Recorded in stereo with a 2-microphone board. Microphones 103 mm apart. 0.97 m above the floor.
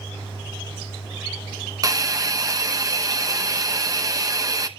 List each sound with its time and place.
1.8 s a hiss: 35° right (ahead or behind), 0.8 m